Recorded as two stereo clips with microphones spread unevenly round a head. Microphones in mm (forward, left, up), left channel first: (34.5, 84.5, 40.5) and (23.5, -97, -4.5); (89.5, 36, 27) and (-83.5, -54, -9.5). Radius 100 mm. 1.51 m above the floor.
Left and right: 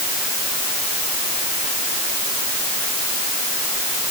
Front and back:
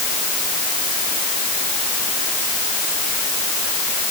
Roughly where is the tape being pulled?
I don't hear tape being pulled.